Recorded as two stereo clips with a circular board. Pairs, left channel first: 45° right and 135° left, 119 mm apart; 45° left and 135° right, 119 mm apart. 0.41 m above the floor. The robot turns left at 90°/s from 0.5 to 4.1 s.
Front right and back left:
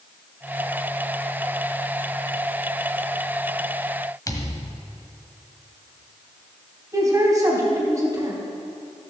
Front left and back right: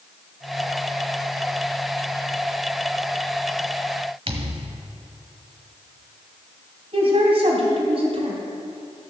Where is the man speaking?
165° right, 3.5 m.